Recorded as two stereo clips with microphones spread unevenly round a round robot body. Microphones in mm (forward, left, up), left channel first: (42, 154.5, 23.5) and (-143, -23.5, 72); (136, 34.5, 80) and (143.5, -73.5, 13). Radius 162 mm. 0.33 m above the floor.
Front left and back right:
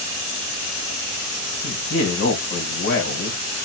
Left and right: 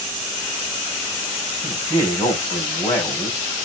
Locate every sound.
1.6 s a man speaking: 50° left, 2.5 m